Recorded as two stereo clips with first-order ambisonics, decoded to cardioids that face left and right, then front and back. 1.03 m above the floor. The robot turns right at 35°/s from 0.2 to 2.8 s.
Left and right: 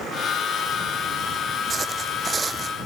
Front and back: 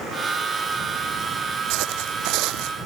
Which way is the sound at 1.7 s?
165° right.